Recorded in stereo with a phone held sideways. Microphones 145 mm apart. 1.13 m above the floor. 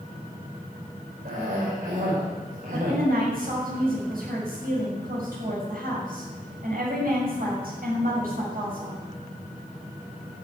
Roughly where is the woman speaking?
Right.